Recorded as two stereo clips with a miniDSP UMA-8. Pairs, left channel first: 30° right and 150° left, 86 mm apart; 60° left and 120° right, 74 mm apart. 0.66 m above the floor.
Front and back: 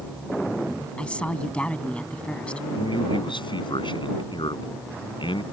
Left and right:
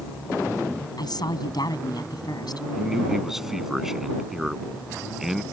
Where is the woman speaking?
50° left.